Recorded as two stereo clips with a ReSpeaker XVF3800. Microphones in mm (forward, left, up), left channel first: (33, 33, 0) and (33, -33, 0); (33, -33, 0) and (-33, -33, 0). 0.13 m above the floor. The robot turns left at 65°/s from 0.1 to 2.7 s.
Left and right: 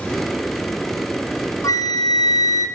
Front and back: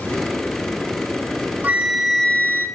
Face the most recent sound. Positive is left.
turn(degrees=45)